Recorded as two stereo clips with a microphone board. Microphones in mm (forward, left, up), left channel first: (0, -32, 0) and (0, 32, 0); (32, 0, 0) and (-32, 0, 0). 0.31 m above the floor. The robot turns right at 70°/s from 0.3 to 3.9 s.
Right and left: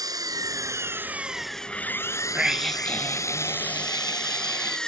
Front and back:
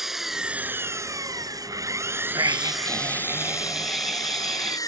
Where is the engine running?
95° left; by 4.9 s 15° right.